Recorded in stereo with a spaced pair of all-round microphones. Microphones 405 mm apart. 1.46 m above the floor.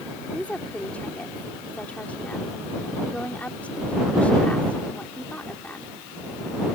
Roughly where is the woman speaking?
Centre.